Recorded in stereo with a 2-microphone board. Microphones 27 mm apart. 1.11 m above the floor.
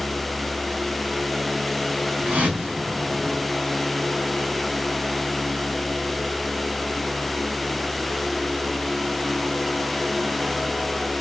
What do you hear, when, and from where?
2.2 s a whoosh: 75° right (ahead or behind), 5 m